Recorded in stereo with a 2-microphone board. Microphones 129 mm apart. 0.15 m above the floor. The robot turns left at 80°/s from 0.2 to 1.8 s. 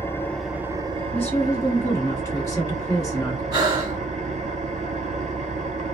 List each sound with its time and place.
0.0 s an engine running: 20° left, 0.7 m; by 5.9 s 110° right, 0.7 m
1.1 s a woman speaking: 10° left (ahead or behind), 1.6 m; by 3.4 s 25° left (ahead or behind), 1.6 m
3.5 s breathing: 30° right (ahead or behind), 1.7 m